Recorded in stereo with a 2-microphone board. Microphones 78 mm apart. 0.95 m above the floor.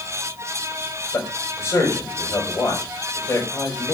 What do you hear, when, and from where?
1.1 s a man speaking: 30° left (ahead or behind), 5.5 m